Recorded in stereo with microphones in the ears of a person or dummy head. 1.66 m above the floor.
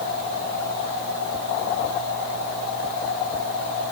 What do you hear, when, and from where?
Only background noise.